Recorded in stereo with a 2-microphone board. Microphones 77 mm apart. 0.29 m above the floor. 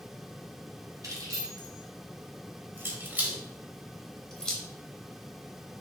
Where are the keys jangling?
55° right (ahead or behind), 1.5 m; by 4.6 s 10° left (ahead or behind), 1.0 m.